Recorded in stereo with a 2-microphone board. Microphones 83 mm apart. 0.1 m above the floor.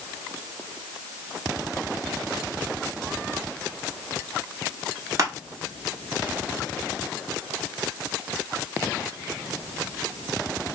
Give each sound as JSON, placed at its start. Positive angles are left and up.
{"t": 5.2, "sound": "crushing", "side_deg": -40, "distance_m": 0.9}